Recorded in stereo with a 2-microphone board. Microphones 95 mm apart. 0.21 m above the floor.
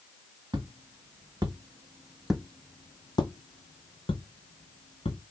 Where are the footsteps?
50° right (ahead or behind), 1.2 m; by 5.2 s 85° left, 1.5 m.